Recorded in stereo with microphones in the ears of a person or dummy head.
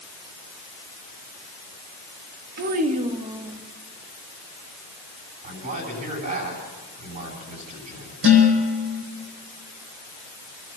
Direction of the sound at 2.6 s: 50° right (ahead or behind).